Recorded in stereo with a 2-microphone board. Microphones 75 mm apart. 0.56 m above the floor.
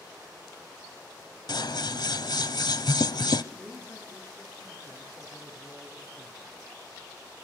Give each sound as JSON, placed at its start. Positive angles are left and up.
{"t": 1.5, "sound": "scissors", "side_deg": 65, "distance_m": 0.8}
{"t": 3.5, "sound": "a man speaking", "side_deg": 20, "distance_m": 9.0}